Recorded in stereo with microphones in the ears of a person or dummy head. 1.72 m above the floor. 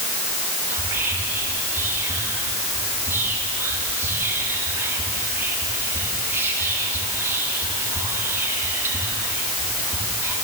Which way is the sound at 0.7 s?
10° right (ahead or behind).